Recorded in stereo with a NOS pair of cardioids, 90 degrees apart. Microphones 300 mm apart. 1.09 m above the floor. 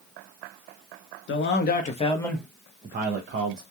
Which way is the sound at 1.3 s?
45° left.